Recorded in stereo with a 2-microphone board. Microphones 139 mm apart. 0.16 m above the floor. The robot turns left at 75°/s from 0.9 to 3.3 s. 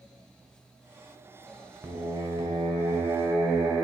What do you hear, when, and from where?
1.8 s singing: 30° right, 0.9 m; by 3.8 s 145° right, 0.9 m